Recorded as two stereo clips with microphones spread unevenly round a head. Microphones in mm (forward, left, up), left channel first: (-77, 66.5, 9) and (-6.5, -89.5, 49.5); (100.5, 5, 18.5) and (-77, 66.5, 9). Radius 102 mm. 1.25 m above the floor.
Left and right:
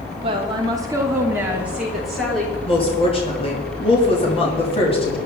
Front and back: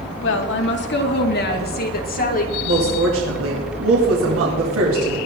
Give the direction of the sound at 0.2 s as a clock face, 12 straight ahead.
12 o'clock.